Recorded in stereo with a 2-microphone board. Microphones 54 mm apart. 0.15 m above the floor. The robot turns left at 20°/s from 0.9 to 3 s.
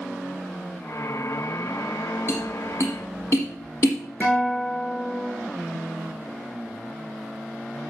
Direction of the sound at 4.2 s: 40° left (ahead or behind).